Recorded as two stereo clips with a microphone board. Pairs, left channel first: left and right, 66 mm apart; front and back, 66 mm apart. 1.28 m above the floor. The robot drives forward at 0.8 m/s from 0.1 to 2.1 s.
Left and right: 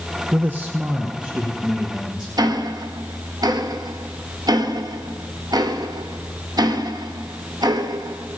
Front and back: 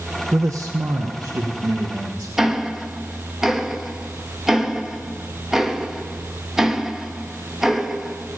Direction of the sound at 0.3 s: 135° right.